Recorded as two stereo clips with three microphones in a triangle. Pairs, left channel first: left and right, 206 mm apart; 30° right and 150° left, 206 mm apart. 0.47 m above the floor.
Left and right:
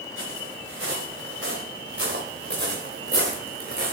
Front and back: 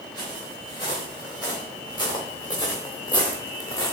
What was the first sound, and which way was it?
Footsteps, 100° right.